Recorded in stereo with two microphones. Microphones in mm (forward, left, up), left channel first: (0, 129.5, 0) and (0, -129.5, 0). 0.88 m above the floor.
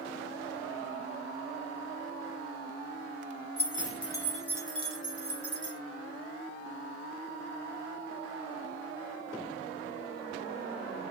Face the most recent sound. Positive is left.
turn(degrees=-50)  # may be behind; listen again after turning